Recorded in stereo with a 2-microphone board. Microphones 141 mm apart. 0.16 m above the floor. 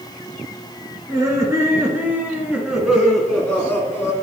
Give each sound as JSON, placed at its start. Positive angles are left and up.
{"t": 1.1, "sound": "laughter", "side_deg": -25, "distance_m": 2.5}